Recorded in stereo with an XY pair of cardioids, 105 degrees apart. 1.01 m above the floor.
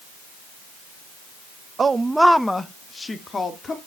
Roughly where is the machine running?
I don't hear a machine running.